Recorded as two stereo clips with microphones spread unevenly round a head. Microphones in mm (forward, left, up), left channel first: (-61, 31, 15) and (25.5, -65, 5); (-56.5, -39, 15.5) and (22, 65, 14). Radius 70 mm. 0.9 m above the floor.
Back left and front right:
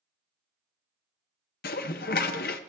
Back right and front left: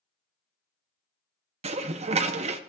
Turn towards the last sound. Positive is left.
turn(degrees=100)